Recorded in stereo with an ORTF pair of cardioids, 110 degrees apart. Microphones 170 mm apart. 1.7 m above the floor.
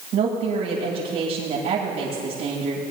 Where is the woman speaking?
65° right, 7.5 m.